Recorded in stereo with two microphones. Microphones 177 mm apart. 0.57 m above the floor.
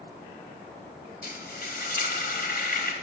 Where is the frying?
55° left (ahead or behind), 0.9 m.